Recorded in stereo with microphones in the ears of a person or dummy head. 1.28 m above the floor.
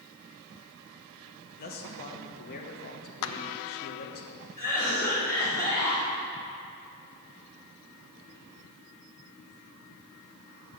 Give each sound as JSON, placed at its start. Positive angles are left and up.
{"t": 1.6, "sound": "a man speaking", "side_deg": 45, "distance_m": 1.1}
{"t": 3.2, "sound": "a clap", "side_deg": 75, "distance_m": 0.6}
{"t": 4.6, "sound": "a cough", "side_deg": 15, "distance_m": 4.0}